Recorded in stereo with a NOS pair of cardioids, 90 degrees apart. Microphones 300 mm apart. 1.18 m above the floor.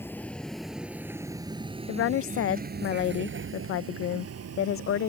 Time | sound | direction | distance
0.0 | a vehicle | 5° left | ?
1.9 | a woman speaking | 45° left | ?